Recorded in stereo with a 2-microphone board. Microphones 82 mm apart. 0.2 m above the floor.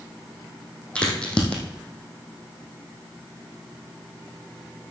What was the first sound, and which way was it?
A crack, 15° left (ahead or behind).